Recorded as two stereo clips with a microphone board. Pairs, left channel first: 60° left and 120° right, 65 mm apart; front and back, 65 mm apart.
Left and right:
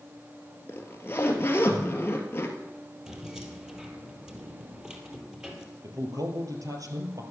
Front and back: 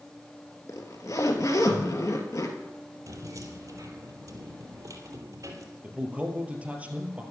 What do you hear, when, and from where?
0.7 s a zipper: 15° left, 1.9 m
3.1 s keys jangling: 165° left, 2 m
5.8 s a man speaking: 115° right, 2.5 m